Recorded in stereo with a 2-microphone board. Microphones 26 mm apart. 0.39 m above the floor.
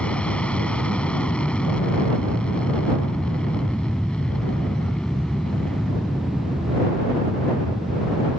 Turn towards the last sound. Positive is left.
turn(degrees=30)  # may be behind; listen again after turning